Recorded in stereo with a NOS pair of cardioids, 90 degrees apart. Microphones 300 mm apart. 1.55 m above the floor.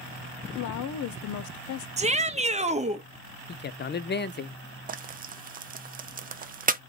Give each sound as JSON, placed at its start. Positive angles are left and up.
{"t": 0.6, "sound": "a woman speaking", "azimuth_deg": 70, "distance_m": 0.5}
{"t": 2.0, "sound": "a shout", "azimuth_deg": -25, "distance_m": 0.8}
{"t": 3.5, "sound": "a man speaking", "azimuth_deg": 35, "distance_m": 0.5}
{"t": 4.9, "sound": "frying", "azimuth_deg": -30, "distance_m": 0.6}